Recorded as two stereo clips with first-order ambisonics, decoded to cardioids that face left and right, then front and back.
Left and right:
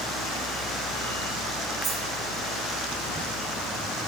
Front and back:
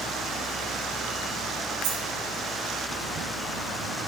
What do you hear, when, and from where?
1.8 s a dropped coin: 165° right, 5 m